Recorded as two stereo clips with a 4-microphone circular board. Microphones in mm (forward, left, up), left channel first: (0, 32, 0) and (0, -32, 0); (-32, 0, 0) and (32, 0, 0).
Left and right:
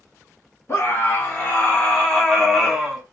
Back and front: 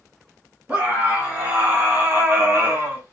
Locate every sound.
0.7 s a scream: 55° left, 1.7 m; by 3.0 s 20° right, 1.3 m